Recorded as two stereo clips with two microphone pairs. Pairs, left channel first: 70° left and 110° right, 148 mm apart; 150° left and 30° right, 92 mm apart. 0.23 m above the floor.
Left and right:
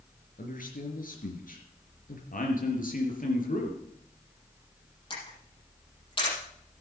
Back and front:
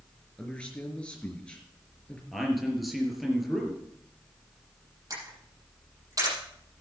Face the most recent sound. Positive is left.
turn(degrees=20)